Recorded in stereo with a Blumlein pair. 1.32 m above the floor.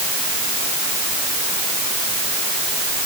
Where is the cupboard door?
No cupboard door in this recording.